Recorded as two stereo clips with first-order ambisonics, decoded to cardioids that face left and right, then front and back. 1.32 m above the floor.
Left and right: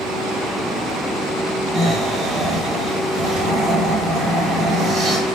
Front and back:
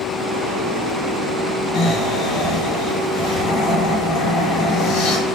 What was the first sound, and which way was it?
Snoring, 20° right.